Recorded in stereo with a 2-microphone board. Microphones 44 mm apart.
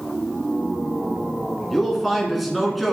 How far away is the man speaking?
About 1.5 m.